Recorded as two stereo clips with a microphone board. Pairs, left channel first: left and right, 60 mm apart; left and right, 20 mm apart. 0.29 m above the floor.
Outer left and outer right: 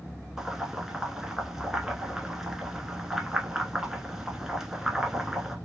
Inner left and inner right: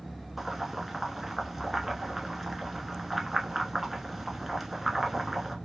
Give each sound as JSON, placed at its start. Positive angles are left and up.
{"t": 0.4, "sound": "boiling", "side_deg": -10, "distance_m": 0.8}